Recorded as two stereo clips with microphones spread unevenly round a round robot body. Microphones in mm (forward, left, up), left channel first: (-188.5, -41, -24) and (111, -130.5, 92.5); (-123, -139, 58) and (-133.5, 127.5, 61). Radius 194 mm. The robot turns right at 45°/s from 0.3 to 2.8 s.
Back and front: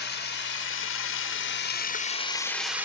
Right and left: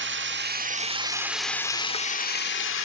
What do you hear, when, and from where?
0.0 s running water: 130° left, 1.1 m; by 2.9 s 115° right, 1.1 m